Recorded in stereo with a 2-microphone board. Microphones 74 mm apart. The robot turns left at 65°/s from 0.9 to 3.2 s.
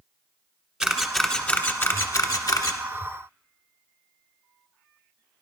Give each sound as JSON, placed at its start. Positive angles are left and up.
{"t": 0.8, "sound": "a camera shutter", "side_deg": -5, "distance_m": 1.2}